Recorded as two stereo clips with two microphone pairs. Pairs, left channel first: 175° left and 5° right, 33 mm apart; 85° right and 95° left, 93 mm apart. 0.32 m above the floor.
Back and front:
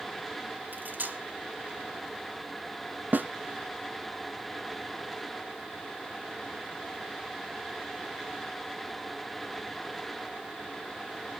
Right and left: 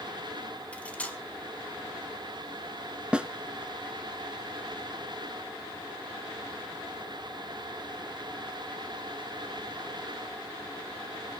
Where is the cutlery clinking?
10° right, 1.7 m.